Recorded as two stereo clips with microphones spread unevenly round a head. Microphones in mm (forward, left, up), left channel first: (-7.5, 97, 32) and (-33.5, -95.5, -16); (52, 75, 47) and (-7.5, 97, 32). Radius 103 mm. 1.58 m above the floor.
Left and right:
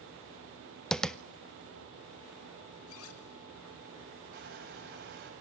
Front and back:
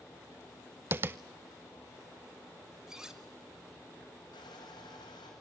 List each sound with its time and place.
0.9 s tapping: 130° left, 0.7 m
2.9 s cutlery clinking: 75° left, 3.5 m
4.3 s crushing: 50° right, 6.5 m